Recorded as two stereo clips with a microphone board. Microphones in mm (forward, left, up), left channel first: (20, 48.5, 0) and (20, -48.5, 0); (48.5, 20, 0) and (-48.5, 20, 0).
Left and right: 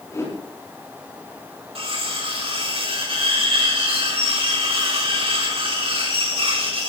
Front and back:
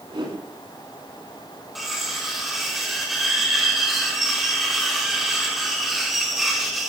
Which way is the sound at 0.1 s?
150° left.